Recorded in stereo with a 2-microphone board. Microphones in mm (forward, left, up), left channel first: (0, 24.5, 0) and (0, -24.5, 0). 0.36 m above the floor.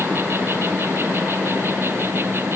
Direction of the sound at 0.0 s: 50° right (ahead or behind).